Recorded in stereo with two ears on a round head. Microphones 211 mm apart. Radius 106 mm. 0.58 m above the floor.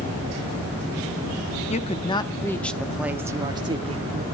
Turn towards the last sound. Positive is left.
turn(degrees=-30)  # may be behind; listen again after turning